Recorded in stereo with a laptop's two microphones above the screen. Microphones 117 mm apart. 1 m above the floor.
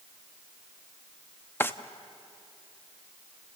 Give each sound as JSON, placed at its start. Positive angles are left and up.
{"t": 1.6, "sound": "a drawer", "side_deg": 20, "distance_m": 0.8}